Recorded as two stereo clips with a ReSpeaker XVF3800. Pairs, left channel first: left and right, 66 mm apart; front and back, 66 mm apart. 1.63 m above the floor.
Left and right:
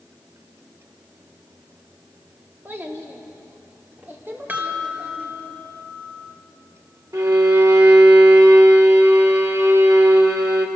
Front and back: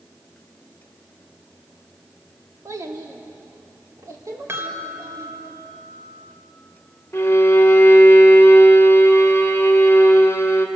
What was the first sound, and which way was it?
A child speaking, 150° right.